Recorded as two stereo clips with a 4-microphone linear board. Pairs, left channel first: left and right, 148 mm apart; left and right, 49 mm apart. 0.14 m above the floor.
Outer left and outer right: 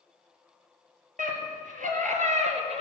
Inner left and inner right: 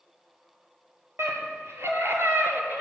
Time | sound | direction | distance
1.2 | a scream | 70° right (ahead or behind) | 4 m